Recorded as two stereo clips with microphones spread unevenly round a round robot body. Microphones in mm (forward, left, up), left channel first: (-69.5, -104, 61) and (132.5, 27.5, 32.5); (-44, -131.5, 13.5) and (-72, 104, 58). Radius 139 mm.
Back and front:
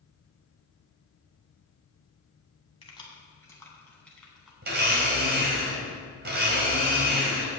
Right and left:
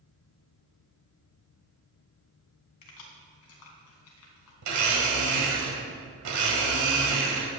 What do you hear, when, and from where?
2.8 s keys jangling: 80° right, 3 m; by 4.5 s 55° right, 3.5 m
4.6 s a blender: 80° left, 2.0 m